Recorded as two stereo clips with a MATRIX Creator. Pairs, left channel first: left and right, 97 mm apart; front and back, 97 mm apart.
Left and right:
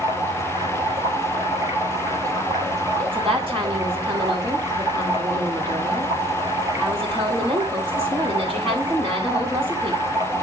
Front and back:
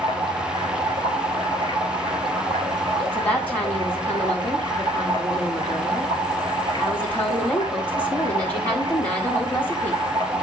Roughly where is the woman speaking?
Right.